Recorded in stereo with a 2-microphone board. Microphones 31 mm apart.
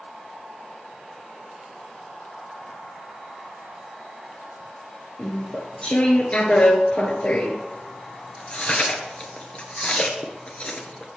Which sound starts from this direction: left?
Chewing, at 5.2 s.